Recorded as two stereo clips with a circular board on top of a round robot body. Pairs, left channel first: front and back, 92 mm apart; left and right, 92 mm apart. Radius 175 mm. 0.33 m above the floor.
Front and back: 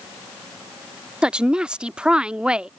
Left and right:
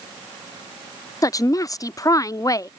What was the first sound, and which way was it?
A woman speaking, 105° left.